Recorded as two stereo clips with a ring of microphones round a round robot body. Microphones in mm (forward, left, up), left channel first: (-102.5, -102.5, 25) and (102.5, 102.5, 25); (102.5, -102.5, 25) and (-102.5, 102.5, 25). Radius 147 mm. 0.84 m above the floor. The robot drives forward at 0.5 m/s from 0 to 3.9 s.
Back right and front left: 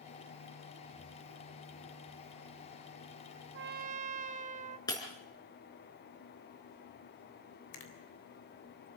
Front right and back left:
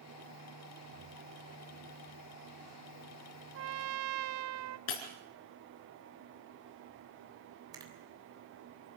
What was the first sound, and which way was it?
A trumpet, 90° left.